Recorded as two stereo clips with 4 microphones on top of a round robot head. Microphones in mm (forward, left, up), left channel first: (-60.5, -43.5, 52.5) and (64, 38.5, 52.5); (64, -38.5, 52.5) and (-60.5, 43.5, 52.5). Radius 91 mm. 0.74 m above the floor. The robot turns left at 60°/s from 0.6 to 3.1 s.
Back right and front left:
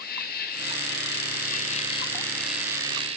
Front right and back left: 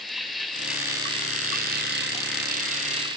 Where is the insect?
125° right, 1.7 m; by 3.2 s 85° left, 1.7 m.